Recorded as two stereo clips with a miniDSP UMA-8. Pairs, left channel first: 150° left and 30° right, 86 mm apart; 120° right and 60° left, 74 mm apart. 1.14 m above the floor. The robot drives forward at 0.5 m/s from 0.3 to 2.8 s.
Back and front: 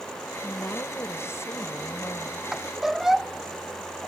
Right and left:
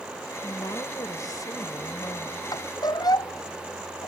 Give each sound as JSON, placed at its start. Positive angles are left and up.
{"t": 0.4, "sound": "a woman speaking", "azimuth_deg": -155}
{"t": 2.5, "sound": "a squeak", "azimuth_deg": -115}